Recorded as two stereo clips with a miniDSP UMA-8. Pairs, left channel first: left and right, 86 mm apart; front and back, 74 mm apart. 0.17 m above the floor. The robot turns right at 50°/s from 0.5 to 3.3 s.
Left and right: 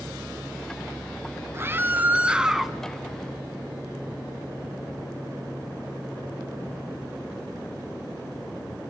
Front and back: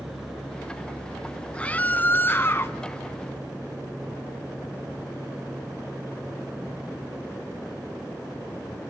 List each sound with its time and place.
1.5 s a scream: 60° right, 1.4 m; by 2.8 s straight ahead, 1.4 m